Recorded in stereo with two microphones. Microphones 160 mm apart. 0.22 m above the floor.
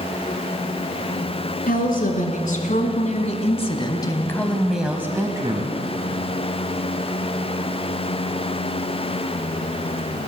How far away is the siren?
I don't hear a siren.